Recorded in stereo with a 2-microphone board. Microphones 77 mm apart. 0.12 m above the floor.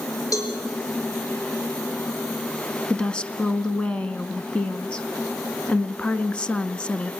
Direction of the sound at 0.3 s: 50° left (ahead or behind).